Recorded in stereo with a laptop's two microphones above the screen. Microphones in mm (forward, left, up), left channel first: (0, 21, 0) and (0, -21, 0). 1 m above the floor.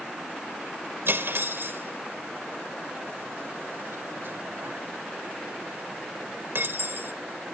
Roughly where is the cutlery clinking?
Right.